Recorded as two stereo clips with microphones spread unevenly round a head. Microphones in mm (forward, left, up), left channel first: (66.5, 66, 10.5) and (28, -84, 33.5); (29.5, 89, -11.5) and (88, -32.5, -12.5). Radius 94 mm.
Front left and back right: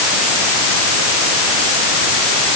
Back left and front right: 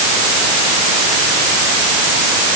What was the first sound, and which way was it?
Only background noise.